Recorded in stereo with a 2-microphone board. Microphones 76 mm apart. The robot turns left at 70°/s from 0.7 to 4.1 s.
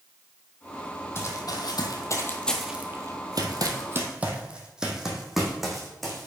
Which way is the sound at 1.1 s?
35° left (ahead or behind).